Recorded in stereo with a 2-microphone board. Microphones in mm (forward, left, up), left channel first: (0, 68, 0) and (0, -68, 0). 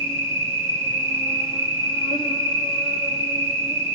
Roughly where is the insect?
Left.